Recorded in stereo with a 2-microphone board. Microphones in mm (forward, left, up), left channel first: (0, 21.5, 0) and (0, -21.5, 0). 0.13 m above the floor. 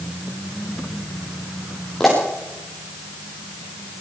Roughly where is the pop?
Centre.